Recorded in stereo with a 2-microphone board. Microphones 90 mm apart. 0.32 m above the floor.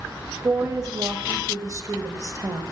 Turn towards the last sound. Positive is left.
turn(degrees=-40)  # may be behind; listen again after turning